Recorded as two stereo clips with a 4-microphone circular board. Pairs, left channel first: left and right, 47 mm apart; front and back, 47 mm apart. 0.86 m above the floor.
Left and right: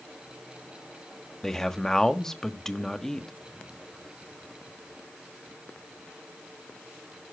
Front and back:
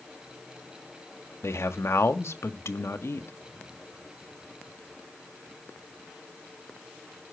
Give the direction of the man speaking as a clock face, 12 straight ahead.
12 o'clock.